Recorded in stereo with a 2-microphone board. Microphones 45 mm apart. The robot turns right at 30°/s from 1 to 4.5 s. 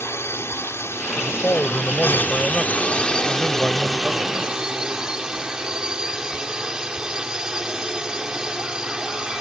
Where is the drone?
90° left; by 9.4 s 165° right.